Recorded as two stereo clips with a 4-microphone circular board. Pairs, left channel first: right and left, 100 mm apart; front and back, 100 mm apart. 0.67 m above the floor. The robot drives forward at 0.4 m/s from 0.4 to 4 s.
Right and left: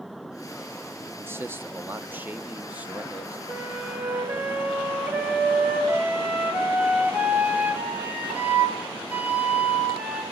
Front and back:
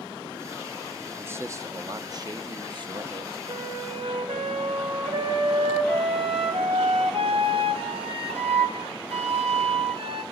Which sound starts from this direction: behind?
A flute, at 3.5 s.